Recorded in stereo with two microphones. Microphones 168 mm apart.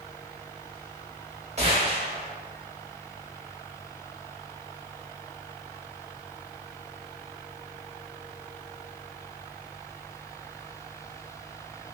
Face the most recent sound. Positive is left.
turn(degrees=-40)  # may be behind; listen again after turning